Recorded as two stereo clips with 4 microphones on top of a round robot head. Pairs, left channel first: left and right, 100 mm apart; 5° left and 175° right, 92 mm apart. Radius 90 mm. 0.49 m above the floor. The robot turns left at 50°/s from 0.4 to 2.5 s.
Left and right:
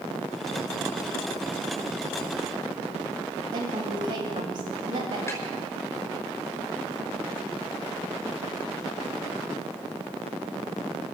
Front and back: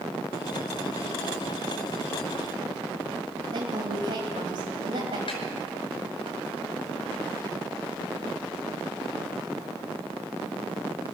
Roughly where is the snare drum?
Ahead left.